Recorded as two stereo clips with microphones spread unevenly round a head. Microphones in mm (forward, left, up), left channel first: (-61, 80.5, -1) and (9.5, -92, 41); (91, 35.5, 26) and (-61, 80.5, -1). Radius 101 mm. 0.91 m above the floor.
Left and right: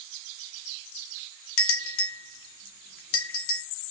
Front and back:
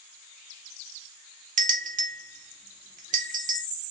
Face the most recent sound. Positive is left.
turn(degrees=125)